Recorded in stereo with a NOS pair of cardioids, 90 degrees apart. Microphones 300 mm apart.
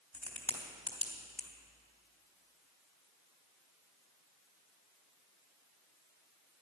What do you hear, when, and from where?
0.1 s a crack: 5° left, 3 m